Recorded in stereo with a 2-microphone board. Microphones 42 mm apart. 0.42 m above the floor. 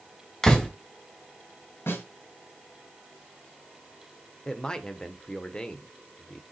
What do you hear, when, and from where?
0.4 s a door slam: 15° left (ahead or behind), 1.6 m
1.9 s a snare drum: 75° left (ahead or behind), 5 m
4.5 s a man speaking: 20° left (ahead or behind), 0.9 m